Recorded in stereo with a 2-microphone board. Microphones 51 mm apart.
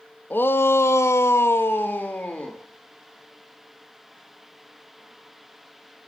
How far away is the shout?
About 1.3 m.